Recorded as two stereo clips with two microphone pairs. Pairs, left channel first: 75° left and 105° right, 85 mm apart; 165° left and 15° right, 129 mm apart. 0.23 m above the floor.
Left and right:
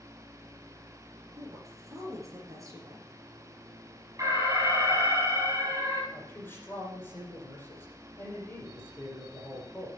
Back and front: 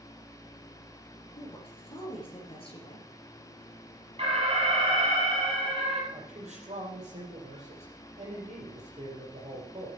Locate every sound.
1.4 s a woman speaking: 150° right, 4 m
4.2 s an alarm: 55° right, 5.5 m
6.1 s a man speaking: 15° left, 6 m